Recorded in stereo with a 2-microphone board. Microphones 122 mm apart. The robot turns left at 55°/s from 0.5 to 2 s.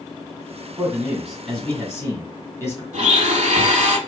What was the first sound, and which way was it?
A man speaking, 145° right.